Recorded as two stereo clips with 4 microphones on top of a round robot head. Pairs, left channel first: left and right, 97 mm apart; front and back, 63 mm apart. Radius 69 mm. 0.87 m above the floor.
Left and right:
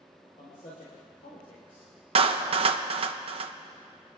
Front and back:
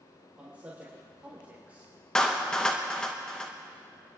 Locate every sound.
0.4 s a man speaking: 120° left, 3 m
2.1 s a clap: 80° right, 0.7 m